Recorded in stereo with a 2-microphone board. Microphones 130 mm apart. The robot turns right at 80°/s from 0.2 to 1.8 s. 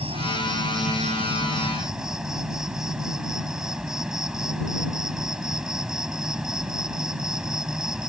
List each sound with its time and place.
0.0 s an insect: 135° right; by 8.1 s 5° right